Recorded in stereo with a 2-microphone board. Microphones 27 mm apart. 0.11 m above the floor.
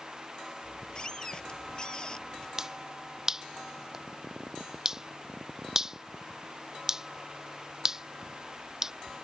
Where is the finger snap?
20° right (ahead or behind).